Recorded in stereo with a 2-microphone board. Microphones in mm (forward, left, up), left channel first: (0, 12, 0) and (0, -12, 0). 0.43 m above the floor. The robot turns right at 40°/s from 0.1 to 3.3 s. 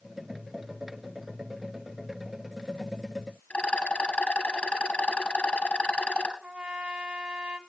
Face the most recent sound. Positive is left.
turn(degrees=-60)  # may be behind; listen again after turning